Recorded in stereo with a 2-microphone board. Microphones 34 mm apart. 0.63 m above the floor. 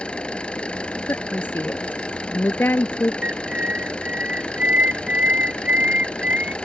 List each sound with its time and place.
0.0 s an engine running: 30° left (ahead or behind)
1.1 s a woman speaking: 75° left (ahead or behind)
3.2 s a bird: 45° right (ahead or behind)